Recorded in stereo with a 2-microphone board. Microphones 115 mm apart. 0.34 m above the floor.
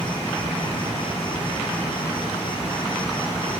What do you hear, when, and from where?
0.0 s an insect: 45° left (ahead or behind), 7 m